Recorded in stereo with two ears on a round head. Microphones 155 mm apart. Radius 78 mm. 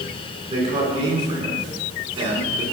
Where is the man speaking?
35° right (ahead or behind), 9 m; by 2.6 s 30° right (ahead or behind), 8 m.